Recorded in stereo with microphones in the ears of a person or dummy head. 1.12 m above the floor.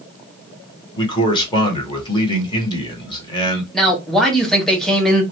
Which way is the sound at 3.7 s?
Centre (ahead or behind).